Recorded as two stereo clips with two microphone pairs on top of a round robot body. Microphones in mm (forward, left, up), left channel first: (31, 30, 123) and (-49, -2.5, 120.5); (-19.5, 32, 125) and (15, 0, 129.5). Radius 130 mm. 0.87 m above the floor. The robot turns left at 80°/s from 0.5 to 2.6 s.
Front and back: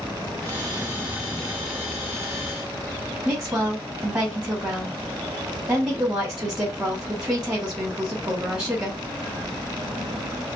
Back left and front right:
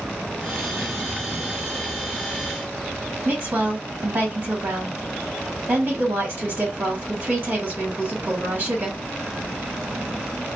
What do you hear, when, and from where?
3.2 s a woman speaking: 90° right, 1.5 m